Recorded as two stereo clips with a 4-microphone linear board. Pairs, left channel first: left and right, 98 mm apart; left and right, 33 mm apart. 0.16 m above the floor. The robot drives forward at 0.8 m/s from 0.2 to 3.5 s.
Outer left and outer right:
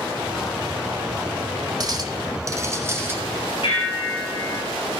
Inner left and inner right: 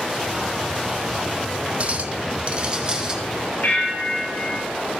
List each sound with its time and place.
1.8 s a clink: 40° right (ahead or behind), 0.8 m; by 3.2 s 25° right (ahead or behind), 1.3 m
3.6 s a bell: 65° left (ahead or behind), 3 m